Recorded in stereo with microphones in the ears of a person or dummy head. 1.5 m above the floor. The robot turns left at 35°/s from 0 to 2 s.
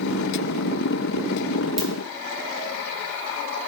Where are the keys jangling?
No keys jangling in this recording.